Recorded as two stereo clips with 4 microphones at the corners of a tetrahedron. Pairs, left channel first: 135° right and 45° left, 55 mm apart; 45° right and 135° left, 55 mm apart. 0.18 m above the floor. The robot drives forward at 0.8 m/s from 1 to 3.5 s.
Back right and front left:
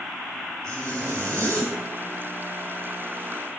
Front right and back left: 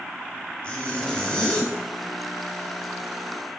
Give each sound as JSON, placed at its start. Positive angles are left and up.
{"t": 0.6, "sound": "a zipper", "azimuth_deg": 25, "distance_m": 3.5}